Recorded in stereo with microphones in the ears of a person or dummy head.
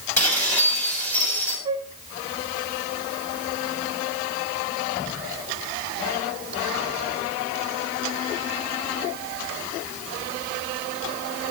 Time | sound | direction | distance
0.2 | dishes clattering | 5° left (ahead or behind) | 7 m
1.6 | a flute | 25° right (ahead or behind) | 0.9 m